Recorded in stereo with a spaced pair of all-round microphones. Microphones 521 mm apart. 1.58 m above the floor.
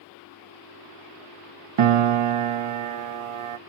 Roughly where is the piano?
Right.